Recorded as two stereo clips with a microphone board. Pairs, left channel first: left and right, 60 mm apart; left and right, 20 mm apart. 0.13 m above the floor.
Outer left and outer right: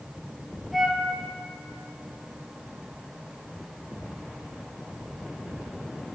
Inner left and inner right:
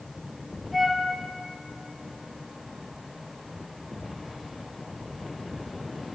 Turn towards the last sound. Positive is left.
turn(degrees=0)  # may be behind; listen again after turning